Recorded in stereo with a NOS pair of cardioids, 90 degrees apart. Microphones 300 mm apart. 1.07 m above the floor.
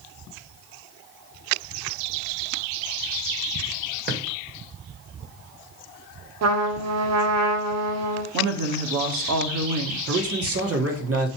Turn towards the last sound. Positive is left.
turn(degrees=-50)